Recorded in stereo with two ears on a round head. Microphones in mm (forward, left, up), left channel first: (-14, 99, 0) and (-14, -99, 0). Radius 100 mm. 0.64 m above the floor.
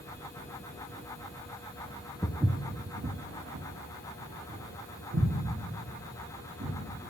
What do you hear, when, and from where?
2.2 s footsteps: 5° left (ahead or behind), 0.6 m; by 6.8 s 65° right (ahead or behind), 4 m